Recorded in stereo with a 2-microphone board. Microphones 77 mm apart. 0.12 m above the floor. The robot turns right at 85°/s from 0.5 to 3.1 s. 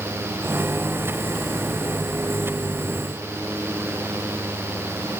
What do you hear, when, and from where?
Only background noise.